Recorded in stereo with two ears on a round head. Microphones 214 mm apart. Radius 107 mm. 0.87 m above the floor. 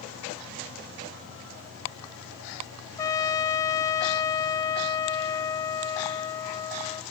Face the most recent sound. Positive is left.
turn(degrees=15)  # may be behind; listen again after turning